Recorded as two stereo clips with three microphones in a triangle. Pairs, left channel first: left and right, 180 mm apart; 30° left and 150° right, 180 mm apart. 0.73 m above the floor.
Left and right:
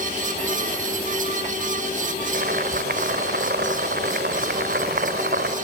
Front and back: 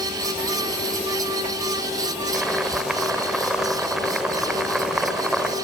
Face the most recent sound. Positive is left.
turn(degrees=-65)